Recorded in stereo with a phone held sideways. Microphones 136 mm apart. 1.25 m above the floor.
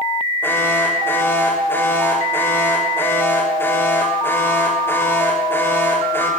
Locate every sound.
0.4 s an alarm: 15° left (ahead or behind), 8.5 m